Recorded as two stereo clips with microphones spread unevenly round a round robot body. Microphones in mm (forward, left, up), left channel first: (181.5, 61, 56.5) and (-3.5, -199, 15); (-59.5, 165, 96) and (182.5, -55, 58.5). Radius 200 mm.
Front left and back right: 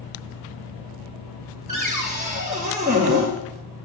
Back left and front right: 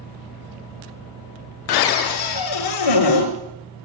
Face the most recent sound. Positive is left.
turn(degrees=165)